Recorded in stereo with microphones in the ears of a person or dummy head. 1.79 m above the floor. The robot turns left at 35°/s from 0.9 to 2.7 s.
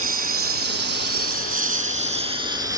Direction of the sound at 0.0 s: 40° right (ahead or behind).